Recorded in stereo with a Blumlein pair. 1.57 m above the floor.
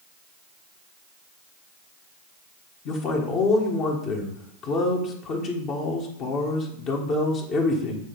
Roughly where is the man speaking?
Ahead left.